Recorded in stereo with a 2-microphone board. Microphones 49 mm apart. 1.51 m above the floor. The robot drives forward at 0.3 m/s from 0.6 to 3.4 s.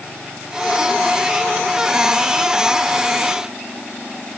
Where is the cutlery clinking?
No cutlery clinking in this recording.